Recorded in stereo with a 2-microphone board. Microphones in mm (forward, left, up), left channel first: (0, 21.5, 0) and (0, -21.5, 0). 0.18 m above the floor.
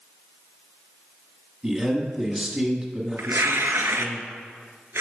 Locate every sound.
1.6 s a man speaking: 20° right (ahead or behind), 1.3 m
3.2 s tearing paper: 75° right (ahead or behind), 0.6 m